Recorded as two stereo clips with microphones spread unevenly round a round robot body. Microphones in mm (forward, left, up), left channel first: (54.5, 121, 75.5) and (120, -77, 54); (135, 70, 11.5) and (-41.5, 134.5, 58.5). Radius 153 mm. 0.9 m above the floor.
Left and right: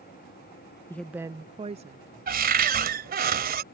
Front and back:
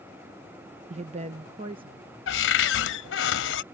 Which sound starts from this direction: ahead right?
A cupboard door, at 2.3 s.